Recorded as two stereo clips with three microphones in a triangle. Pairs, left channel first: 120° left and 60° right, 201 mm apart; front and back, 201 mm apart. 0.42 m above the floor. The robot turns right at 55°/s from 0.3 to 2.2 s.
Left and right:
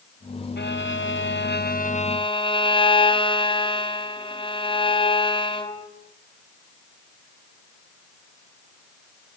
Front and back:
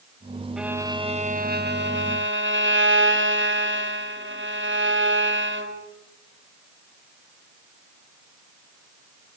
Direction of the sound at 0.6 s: 90° left.